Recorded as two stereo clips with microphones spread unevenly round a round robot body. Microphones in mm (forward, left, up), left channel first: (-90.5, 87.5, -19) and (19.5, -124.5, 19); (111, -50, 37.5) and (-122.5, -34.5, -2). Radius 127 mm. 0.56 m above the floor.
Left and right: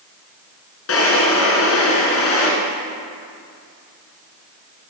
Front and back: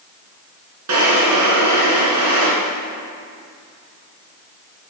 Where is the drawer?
145° left, 1.9 m.